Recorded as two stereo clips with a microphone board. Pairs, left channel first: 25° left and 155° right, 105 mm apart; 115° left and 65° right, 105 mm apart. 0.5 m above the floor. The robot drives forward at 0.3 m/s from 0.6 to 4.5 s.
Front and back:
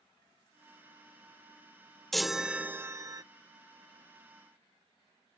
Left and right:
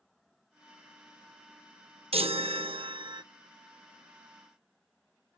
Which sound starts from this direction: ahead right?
A chime, at 2.1 s.